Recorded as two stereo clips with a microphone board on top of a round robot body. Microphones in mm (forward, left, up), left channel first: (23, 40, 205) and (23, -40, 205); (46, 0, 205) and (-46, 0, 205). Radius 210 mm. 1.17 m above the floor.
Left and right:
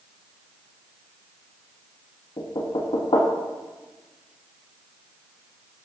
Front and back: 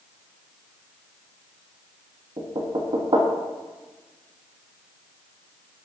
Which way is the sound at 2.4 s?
135° left.